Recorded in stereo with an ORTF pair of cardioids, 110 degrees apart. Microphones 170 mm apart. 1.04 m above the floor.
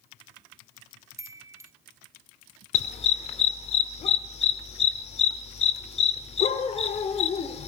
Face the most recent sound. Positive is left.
turn(degrees=40)